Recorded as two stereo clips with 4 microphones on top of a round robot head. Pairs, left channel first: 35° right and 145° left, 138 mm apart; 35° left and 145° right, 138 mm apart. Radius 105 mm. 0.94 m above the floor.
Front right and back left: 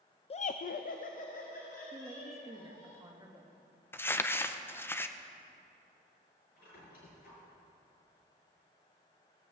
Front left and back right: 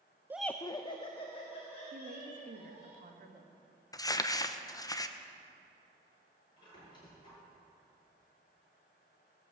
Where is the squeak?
25° right, 5 m.